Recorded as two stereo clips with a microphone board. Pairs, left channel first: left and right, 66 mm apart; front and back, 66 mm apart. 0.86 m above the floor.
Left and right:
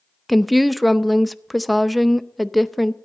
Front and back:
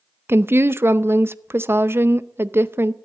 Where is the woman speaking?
Straight behind, 0.5 m.